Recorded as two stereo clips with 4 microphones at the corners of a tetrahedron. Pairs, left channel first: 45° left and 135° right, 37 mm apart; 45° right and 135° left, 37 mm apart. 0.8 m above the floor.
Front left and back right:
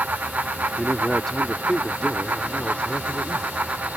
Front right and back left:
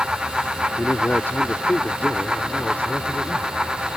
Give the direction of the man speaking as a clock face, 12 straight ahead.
1 o'clock.